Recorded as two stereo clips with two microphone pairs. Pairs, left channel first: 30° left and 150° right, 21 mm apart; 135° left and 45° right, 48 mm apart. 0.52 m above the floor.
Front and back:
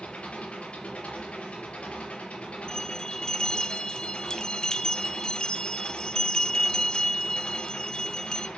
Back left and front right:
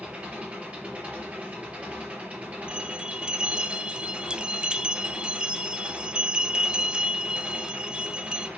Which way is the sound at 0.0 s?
15° left.